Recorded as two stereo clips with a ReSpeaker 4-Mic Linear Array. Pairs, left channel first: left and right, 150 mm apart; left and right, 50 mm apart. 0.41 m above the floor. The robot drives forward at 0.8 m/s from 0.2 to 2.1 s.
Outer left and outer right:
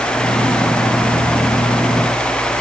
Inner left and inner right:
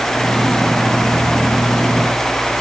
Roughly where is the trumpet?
I don't hear a trumpet.